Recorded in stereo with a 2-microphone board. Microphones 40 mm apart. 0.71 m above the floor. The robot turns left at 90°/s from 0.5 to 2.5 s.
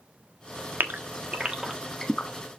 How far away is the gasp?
About 1.4 m.